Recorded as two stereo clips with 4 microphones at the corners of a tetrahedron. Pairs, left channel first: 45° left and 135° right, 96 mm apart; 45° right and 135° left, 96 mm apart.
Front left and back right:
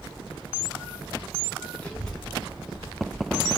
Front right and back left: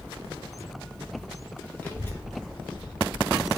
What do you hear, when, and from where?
1.8 s a child speaking: straight ahead, 0.8 m; by 3.5 s 75° right, 1.2 m